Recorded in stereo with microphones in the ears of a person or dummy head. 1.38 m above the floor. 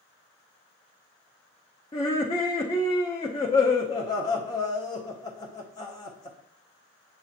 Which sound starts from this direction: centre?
Laughter, at 1.9 s.